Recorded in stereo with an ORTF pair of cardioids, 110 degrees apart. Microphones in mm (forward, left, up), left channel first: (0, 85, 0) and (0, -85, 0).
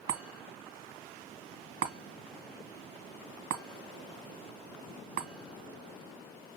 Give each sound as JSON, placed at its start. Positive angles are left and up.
{"t": 0.1, "sound": "a chime", "azimuth_deg": -70, "distance_m": 2.0}